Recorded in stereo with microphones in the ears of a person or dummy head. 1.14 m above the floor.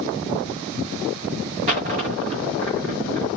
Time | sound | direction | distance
1.7 | a dropped coin | 40° right (ahead or behind) | 1.0 m